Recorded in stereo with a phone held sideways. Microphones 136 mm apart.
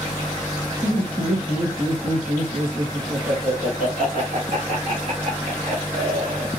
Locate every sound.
0.8 s laughter: 25° right (ahead or behind), 1.5 m; by 6.5 s 65° right (ahead or behind), 3 m